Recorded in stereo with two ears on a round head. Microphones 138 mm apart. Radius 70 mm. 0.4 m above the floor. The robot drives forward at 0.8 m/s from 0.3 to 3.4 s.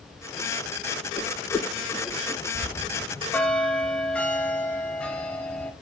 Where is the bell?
15° left (ahead or behind), 0.8 m; by 5.7 s 10° left (ahead or behind), 1.3 m.